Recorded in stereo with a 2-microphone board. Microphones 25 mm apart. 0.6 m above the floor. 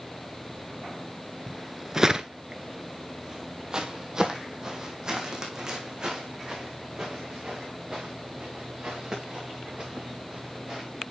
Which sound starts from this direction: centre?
Footsteps, at 1.5 s.